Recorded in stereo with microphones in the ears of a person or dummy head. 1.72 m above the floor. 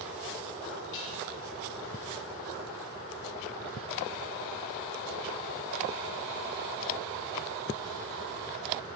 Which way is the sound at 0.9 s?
70° left (ahead or behind).